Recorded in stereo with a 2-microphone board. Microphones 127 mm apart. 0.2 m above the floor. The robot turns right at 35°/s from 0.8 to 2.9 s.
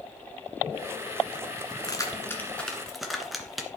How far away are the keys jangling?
About 2.0 m.